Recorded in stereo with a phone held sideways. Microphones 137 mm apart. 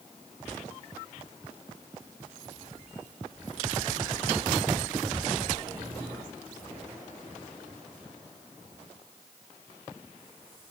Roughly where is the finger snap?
No finger snap in this recording.